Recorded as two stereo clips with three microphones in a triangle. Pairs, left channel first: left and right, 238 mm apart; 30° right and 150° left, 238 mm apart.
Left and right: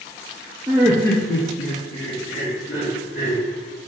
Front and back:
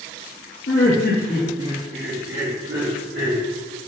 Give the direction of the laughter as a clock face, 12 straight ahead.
12 o'clock.